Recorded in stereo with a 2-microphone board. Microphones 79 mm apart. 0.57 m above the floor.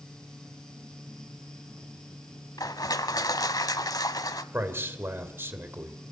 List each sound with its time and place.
2.6 s crushing: 55° left (ahead or behind), 1.0 m
4.5 s a man speaking: 30° right (ahead or behind), 2.5 m